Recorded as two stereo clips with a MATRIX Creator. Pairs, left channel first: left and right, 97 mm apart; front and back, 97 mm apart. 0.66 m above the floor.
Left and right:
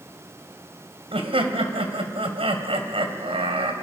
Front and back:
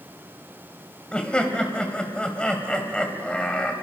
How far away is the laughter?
About 2.5 m.